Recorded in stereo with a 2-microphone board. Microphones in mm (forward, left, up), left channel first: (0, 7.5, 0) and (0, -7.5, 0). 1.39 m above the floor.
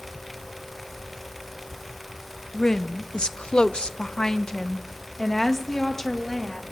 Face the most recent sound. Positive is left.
turn(degrees=20)  # may be behind; listen again after turning